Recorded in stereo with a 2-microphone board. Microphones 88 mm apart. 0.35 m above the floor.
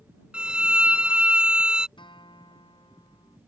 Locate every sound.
0.3 s a violin: 10° right (ahead or behind)
2.0 s a guitar: 70° left (ahead or behind)